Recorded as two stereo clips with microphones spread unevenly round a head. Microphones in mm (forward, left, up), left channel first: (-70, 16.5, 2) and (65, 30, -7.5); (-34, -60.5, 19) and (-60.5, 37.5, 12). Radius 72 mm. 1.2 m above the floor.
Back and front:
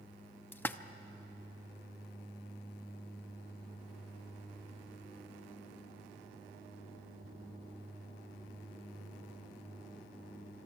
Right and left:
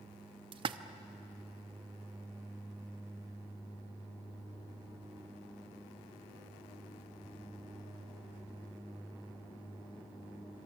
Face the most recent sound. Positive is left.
turn(degrees=120)